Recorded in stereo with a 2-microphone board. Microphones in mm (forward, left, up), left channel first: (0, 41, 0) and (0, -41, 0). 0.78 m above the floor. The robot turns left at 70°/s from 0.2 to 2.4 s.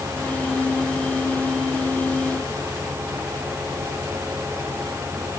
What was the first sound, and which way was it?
Only background noise.